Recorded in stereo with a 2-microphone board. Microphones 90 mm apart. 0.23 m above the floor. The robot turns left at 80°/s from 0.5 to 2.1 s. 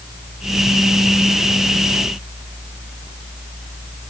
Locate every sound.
Only background noise.